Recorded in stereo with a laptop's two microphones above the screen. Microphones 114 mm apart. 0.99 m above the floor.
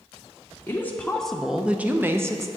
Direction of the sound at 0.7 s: 20° left (ahead or behind).